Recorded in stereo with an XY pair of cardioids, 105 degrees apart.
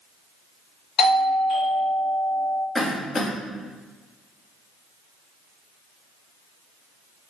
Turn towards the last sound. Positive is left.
turn(degrees=35)